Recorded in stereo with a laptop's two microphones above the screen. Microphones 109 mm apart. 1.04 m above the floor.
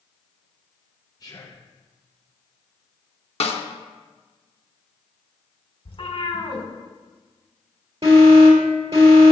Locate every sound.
1.2 s whispering: 35° left (ahead or behind), 0.5 m
3.4 s a snare drum: 70° left (ahead or behind), 0.9 m
5.8 s a cat meowing: 60° left (ahead or behind), 1.6 m
8.0 s an alarm: 70° right (ahead or behind), 3.5 m